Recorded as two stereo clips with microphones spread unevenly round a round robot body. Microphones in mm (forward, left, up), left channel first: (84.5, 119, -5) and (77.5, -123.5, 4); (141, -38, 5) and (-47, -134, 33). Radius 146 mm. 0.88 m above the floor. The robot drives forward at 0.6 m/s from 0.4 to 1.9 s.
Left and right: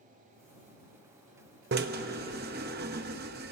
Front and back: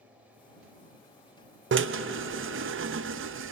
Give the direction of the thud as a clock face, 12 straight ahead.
I don't hear a thud.